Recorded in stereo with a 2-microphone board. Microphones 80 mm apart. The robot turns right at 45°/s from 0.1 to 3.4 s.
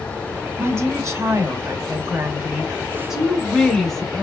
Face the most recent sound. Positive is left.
turn(degrees=5)